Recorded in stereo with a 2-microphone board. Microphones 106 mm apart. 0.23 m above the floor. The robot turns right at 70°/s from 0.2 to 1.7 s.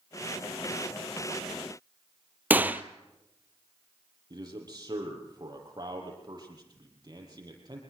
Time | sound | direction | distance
2.5 | a gunshot | 15° right (ahead or behind) | 0.9 m
4.3 | a man speaking | 40° right (ahead or behind) | 7 m